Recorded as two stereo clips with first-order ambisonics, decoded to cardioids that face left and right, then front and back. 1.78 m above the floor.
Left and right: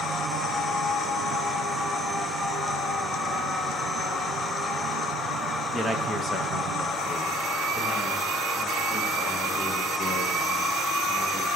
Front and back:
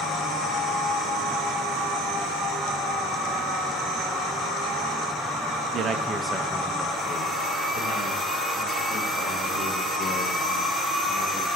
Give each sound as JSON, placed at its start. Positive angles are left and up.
{"t": 5.7, "sound": "a man speaking", "azimuth_deg": 165, "distance_m": 0.6}